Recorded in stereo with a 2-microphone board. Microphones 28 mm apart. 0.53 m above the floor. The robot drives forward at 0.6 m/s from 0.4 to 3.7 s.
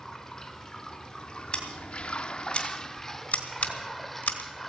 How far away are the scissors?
About 2.5 m.